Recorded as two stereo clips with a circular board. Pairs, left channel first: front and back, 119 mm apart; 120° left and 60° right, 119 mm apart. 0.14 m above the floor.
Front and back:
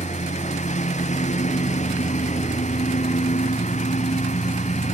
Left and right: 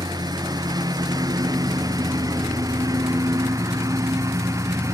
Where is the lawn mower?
5° right; by 4.9 s 5° left.